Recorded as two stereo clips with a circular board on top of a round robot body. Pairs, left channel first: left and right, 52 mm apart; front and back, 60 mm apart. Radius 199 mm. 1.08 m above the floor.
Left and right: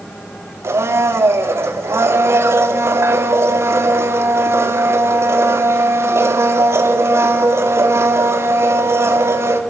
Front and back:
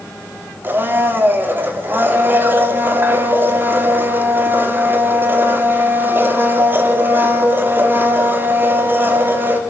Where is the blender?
125° right, 3 m.